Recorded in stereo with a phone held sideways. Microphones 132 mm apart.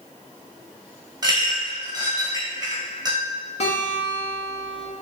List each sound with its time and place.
1.2 s a clink: 30° right (ahead or behind), 1.2 m
3.6 s a guitar: 50° left (ahead or behind), 1.1 m